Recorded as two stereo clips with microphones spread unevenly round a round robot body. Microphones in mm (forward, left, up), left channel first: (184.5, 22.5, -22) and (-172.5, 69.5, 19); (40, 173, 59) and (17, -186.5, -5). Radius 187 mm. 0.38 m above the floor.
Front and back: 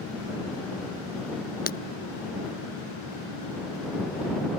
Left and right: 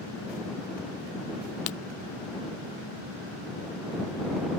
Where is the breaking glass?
60° left.